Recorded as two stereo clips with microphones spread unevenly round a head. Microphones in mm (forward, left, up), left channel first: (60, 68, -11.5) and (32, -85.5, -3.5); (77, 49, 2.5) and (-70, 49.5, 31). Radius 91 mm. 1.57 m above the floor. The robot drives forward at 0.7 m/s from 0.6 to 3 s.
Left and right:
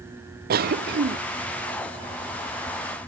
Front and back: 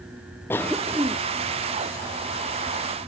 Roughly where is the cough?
Right.